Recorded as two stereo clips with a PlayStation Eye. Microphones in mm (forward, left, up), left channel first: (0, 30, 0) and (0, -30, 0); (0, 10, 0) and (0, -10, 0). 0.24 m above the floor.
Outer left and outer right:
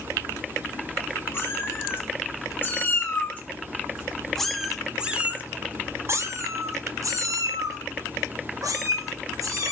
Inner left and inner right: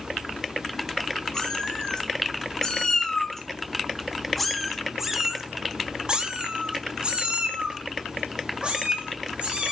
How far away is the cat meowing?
About 2.5 m.